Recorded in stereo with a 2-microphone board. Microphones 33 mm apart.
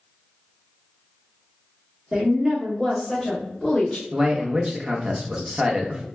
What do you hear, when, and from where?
2.1 s a woman speaking: 25° right (ahead or behind), 1.2 m; by 4.0 s 20° left (ahead or behind), 1.3 m
4.1 s a man speaking: 20° right (ahead or behind), 0.8 m